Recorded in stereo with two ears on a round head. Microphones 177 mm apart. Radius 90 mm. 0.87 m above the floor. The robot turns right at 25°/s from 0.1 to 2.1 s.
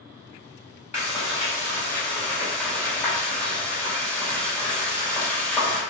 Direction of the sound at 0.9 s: 35° left (ahead or behind).